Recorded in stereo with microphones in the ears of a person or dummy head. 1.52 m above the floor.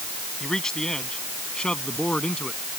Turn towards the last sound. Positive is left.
turn(degrees=5)  # may be behind; listen again after turning